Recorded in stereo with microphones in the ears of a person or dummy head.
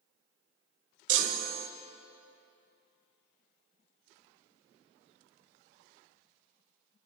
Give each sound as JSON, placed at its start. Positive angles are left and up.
{"t": 1.1, "sound": "a chime", "side_deg": -80, "distance_m": 1.3}